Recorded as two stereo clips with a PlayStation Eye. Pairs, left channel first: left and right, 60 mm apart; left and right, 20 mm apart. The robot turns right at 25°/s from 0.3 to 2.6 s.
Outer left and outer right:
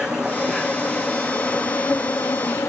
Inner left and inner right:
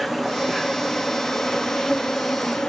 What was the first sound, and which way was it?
An insect, 10° right.